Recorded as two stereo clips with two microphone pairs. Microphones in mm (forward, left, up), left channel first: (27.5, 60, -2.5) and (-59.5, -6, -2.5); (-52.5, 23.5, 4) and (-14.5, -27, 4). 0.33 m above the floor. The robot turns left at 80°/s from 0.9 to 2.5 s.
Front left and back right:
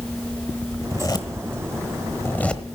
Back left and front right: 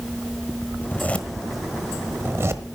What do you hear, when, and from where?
0.8 s a zipper: 90° left, 1.1 m; by 2.6 s 40° right, 1.1 m